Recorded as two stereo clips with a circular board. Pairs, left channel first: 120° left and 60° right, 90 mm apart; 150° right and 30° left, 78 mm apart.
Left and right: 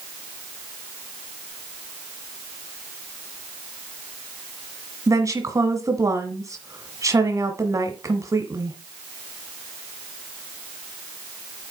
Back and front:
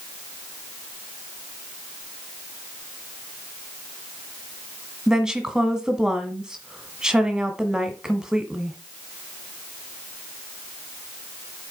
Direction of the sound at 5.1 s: 45° right.